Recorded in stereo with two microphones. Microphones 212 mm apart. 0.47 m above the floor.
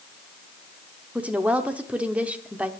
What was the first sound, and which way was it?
A woman speaking, 5° right (ahead or behind).